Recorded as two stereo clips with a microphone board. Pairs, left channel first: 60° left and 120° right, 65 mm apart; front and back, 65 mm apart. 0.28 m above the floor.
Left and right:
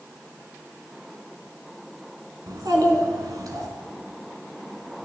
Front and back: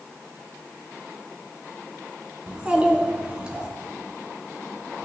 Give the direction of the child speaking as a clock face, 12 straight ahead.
4 o'clock.